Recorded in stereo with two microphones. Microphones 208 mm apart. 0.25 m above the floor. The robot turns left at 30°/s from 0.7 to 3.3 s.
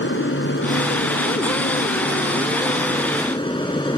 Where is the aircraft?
105° left; by 4.0 s 25° left.